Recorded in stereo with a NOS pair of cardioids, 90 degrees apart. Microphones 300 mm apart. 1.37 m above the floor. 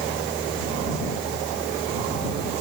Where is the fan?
Straight ahead.